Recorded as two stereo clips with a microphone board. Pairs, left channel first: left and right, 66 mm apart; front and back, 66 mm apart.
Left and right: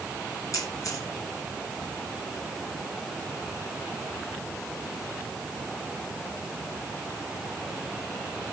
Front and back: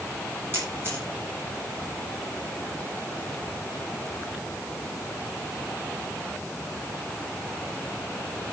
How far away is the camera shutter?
About 7.5 m.